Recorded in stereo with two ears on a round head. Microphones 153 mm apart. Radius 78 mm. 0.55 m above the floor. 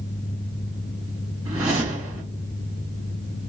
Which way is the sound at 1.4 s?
10° right (ahead or behind).